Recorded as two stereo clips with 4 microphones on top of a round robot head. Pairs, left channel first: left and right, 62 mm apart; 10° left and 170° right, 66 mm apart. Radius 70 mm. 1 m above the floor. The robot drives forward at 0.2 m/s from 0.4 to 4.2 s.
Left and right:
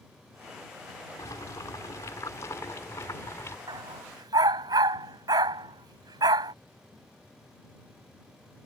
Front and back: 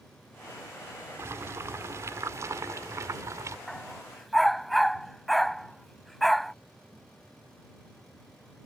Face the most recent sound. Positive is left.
turn(degrees=-80)